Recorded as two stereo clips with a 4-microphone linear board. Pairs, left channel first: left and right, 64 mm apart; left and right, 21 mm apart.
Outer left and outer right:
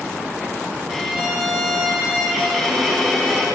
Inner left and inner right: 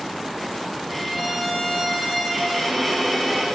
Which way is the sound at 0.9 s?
5° right (ahead or behind).